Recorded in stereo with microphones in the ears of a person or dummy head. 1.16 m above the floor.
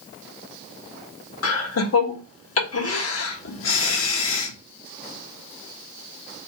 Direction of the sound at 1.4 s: 85° left.